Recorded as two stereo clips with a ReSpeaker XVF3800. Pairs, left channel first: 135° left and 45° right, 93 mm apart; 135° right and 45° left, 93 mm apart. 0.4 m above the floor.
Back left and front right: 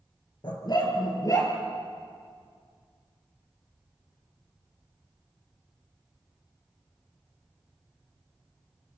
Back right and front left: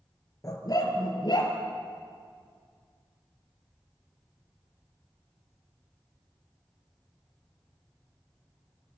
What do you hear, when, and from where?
0.4 s a dog barking: 175° left, 3.5 m; by 1.5 s 170° right, 4 m